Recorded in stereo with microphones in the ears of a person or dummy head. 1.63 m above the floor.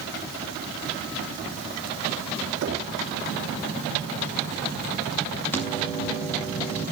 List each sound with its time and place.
2.6 s knocking: 65° right (ahead or behind), 3 m
5.5 s a microwave: 10° left (ahead or behind), 8 m